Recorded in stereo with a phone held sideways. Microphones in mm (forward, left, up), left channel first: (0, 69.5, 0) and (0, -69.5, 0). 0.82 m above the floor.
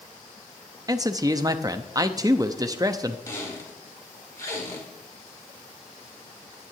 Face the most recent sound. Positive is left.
turn(degrees=25)  # may be behind; listen again after turning